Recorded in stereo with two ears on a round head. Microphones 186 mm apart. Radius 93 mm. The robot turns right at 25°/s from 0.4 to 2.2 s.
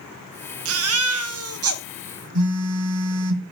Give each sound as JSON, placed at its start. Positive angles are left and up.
{"t": 0.7, "sound": "a baby crying", "side_deg": -70, "distance_m": 0.8}
{"t": 2.4, "sound": "a phone buzzing", "side_deg": -85, "distance_m": 1.9}